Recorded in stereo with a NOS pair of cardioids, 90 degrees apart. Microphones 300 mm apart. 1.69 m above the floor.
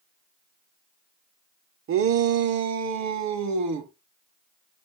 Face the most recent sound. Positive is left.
turn(degrees=-70)